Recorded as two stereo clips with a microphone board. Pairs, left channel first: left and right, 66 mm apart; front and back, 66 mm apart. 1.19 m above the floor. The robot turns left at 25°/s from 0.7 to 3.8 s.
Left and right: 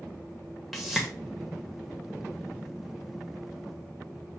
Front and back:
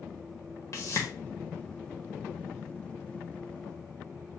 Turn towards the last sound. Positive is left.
turn(degrees=-75)